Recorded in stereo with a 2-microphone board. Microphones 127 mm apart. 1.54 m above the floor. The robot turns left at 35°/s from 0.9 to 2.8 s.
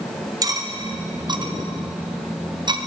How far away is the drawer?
I don't hear a drawer.